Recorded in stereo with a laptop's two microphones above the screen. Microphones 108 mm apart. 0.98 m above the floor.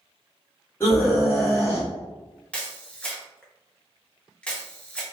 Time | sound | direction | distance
0.8 | a scream | 25° left (ahead or behind) | 1.8 m
2.5 | a camera shutter | 10° left (ahead or behind) | 0.7 m